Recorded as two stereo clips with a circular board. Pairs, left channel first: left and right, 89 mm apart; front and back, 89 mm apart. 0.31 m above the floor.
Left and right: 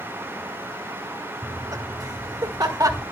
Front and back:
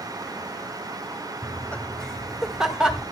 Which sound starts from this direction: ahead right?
Laughter, at 1.4 s.